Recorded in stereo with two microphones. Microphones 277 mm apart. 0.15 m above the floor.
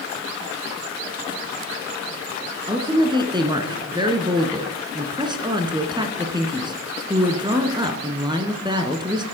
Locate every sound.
2.7 s a woman speaking: 15° right (ahead or behind), 1.4 m